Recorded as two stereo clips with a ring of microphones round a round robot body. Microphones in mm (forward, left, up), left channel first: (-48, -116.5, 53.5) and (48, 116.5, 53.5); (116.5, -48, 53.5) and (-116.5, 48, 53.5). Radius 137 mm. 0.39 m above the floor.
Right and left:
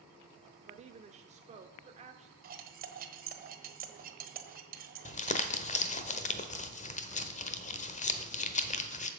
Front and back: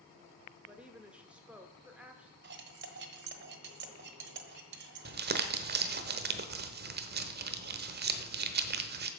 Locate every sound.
0.7 s a woman speaking: 80° left, 0.9 m
2.4 s cutlery clinking: 120° left, 1.3 m
5.0 s crumpling: 165° right, 1.0 m